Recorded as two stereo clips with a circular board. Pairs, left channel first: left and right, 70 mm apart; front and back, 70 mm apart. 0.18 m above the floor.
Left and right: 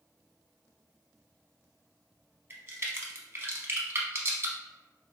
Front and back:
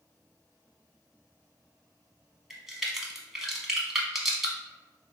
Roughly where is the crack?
Right.